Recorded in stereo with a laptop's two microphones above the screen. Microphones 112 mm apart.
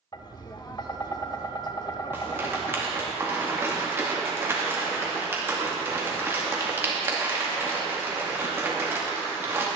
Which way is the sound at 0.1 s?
40° left (ahead or behind).